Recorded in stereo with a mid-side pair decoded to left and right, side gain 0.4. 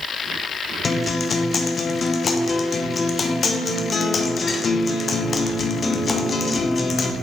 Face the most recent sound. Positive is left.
turn(degrees=40)